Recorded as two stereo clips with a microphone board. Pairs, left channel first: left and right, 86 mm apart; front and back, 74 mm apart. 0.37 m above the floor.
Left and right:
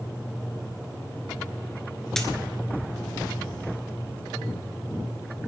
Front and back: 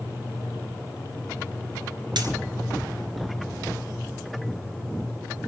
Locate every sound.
2.2 s a dropped coin: 175° left, 1.6 m